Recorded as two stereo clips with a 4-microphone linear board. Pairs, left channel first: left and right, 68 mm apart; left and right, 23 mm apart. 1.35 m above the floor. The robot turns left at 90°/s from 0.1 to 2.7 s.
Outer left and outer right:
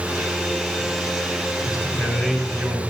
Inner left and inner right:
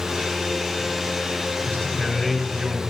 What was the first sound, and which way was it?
A man speaking, 65° left.